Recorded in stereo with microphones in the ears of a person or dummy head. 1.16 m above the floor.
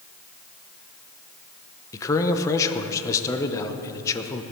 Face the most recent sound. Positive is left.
turn(degrees=15)  # may be behind; listen again after turning